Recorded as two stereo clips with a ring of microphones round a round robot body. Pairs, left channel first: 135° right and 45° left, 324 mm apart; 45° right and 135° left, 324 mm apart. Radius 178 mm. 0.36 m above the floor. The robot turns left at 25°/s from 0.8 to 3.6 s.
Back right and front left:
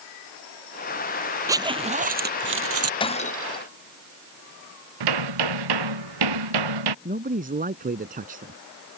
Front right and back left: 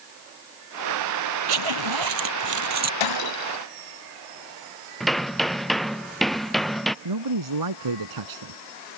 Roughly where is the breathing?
No breathing in this recording.